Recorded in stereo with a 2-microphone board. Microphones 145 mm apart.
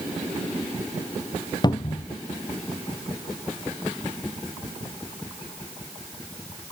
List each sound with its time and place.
1.6 s a cupboard door: 30° left (ahead or behind), 0.6 m